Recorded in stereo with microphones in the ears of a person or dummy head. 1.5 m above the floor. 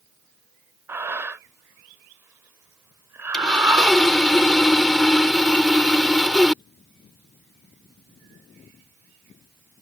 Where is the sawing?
5° left (ahead or behind).